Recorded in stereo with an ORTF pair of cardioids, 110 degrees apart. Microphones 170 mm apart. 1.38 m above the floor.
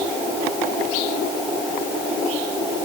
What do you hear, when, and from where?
Only background noise.